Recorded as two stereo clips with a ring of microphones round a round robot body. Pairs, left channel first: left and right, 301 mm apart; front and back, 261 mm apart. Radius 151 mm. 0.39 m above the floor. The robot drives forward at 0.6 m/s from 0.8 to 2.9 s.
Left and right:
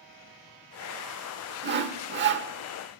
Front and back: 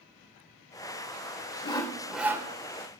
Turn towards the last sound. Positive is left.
turn(degrees=-135)